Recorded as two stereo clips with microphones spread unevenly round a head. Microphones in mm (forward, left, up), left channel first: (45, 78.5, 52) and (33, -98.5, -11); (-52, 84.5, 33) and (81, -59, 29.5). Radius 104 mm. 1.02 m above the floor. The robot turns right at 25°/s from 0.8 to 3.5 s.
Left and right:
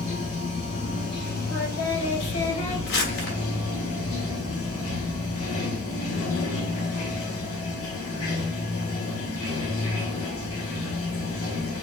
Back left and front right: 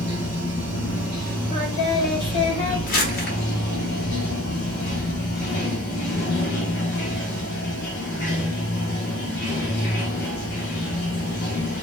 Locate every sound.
0.0 s running water: 30° left, 2.5 m; by 11.8 s 100° left, 2.5 m
1.5 s singing: 80° left, 2.5 m; by 2.8 s 110° left, 2.5 m
2.9 s crumpling: 85° left, 1.2 m; by 3.4 s 100° left, 1.2 m